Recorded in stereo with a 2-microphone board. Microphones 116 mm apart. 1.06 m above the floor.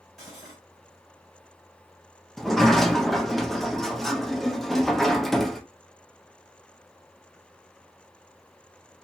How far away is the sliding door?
About 0.8 m.